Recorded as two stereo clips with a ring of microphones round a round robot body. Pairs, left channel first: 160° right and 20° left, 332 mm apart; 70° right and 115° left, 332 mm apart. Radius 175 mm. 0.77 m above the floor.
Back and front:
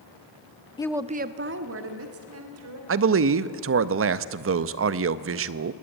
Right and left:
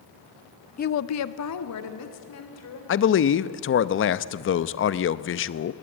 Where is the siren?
I don't hear a siren.